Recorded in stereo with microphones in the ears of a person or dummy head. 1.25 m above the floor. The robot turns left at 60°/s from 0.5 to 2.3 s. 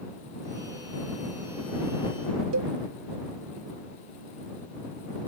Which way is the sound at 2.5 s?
85° right.